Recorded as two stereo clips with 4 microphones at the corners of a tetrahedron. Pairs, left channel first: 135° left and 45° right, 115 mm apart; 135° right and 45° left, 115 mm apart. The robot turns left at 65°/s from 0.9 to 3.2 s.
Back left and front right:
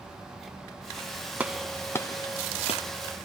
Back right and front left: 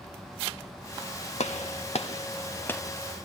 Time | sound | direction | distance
1.4 | a gunshot | 120° right | 1.2 m